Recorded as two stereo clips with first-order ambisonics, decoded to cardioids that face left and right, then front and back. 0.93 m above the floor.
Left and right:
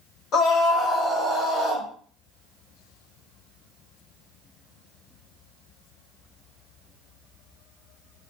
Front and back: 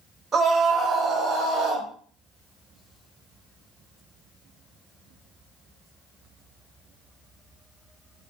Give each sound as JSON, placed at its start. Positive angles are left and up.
{"t": 0.3, "sound": "a scream", "azimuth_deg": 115, "distance_m": 0.9}